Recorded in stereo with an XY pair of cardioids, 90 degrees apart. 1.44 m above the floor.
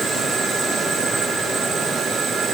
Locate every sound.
Only background noise.